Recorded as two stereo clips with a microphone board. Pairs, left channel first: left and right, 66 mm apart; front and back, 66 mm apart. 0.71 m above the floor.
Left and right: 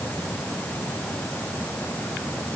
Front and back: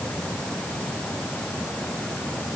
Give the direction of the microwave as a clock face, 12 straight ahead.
No microwave in this recording.